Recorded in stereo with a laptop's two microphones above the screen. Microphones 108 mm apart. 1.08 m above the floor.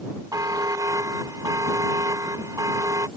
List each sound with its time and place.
0.3 s a buzzer: 35° right (ahead or behind)